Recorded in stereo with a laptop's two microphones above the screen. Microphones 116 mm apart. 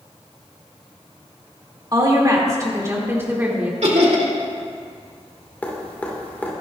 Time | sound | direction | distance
1.9 | a woman speaking | 35° right (ahead or behind) | 2.5 m
3.8 | laughter | 65° right (ahead or behind) | 2.5 m
5.6 | dripping | 15° left (ahead or behind) | 2.0 m